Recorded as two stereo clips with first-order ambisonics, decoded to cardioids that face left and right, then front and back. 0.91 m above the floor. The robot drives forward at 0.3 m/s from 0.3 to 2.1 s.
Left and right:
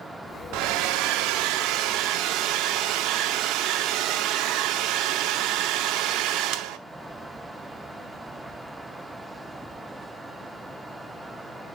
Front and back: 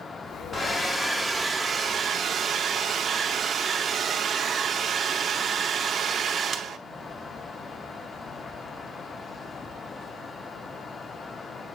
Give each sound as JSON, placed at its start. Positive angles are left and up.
{"t": 0.5, "sound": "a hair dryer", "azimuth_deg": -75, "distance_m": 0.7}